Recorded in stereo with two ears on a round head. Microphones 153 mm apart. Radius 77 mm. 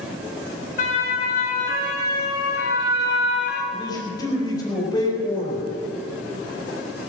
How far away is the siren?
About 4.5 m.